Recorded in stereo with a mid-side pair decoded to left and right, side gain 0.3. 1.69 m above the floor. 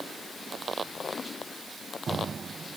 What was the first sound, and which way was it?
Only background noise.